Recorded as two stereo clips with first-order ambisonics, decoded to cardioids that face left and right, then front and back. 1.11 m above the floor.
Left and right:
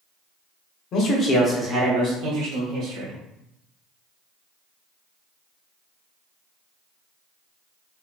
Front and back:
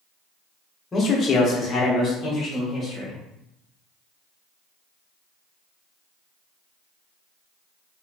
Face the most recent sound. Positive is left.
turn(degrees=-80)